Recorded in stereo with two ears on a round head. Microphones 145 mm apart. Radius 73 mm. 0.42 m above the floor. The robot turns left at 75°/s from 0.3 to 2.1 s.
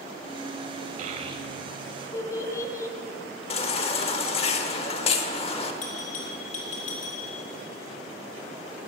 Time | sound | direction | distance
1.0 | a child speaking | 55° right (ahead or behind) | 1.6 m
3.5 | a baby crying | 35° left (ahead or behind) | 0.9 m
5.8 | a bell | 50° left (ahead or behind) | 3.5 m